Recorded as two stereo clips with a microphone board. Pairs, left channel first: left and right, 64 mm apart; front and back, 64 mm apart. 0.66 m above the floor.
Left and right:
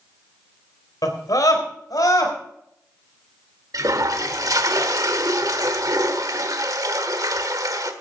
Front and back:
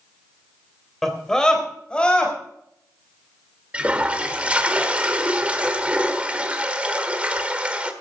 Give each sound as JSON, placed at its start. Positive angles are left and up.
{"t": 1.0, "sound": "a scream", "azimuth_deg": 85, "distance_m": 3.5}
{"t": 3.7, "sound": "a toilet flushing", "azimuth_deg": -110, "distance_m": 1.3}